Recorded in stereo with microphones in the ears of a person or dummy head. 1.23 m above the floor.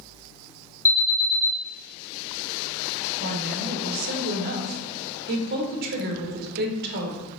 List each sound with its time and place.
0.8 s an alarm: 15° left (ahead or behind), 2 m
3.2 s a woman speaking: 50° right (ahead or behind), 1.0 m